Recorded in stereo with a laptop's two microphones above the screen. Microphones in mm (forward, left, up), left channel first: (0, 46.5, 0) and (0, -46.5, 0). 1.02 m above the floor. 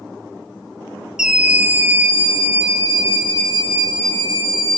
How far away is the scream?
About 0.8 m.